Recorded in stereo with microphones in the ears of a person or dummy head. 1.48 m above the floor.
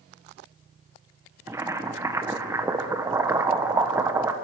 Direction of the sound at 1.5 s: 20° right (ahead or behind).